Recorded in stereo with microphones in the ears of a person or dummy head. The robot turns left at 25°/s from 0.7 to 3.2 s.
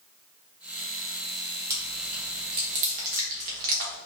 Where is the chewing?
20° right (ahead or behind), 1.3 m; by 4.0 s 50° right (ahead or behind), 1.3 m.